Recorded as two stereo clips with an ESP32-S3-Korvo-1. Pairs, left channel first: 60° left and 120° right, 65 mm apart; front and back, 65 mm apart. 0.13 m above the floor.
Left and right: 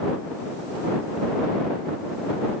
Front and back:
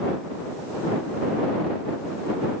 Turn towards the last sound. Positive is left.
No sound to turn to.